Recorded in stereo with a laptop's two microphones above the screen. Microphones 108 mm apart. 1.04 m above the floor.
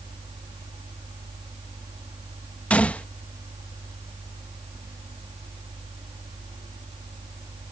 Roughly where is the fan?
Right.